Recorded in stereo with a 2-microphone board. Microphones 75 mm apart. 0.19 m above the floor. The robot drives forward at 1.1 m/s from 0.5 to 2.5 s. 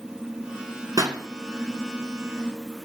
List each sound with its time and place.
1.0 s a pop: 55° right (ahead or behind), 1.5 m